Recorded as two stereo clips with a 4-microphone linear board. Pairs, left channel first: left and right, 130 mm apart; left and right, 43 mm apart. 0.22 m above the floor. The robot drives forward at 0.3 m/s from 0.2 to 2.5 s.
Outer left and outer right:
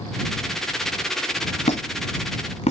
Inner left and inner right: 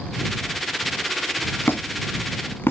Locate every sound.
1.7 s a squeak: 60° left (ahead or behind), 1.1 m